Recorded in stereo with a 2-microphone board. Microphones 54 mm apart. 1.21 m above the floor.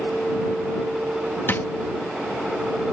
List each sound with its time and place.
1.5 s a drawer: 40° left (ahead or behind)